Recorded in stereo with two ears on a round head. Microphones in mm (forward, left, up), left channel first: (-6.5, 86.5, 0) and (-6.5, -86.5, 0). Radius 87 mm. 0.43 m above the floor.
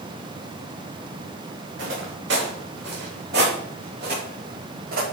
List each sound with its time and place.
1.8 s footsteps: 70° right (ahead or behind), 5.5 m; by 5.0 s 50° right (ahead or behind), 7 m